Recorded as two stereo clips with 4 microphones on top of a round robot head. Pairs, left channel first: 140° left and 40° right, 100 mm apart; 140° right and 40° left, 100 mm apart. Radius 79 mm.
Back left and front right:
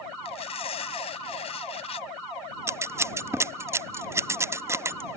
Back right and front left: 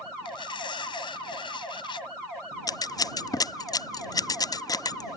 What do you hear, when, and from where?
0.2 s tearing paper: 175° left
2.7 s scissors: 100° right